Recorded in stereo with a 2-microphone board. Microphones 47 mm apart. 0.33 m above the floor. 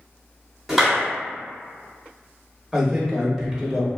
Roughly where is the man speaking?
Centre.